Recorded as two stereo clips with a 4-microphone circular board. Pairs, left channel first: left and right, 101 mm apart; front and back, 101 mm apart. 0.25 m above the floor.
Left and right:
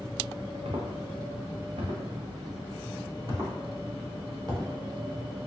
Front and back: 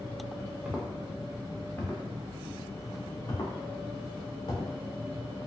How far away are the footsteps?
About 1.5 m.